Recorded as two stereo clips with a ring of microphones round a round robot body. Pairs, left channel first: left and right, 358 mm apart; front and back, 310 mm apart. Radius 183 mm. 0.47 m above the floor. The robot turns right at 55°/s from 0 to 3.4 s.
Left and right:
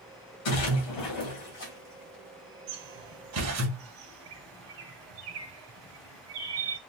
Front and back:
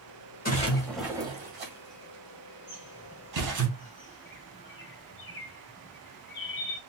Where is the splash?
60° left, 2.0 m; by 3.7 s 140° right, 2.0 m.